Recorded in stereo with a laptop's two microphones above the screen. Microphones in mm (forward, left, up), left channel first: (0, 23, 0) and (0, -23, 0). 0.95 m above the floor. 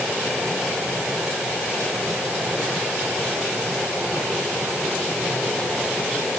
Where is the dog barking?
No dog barking in this recording.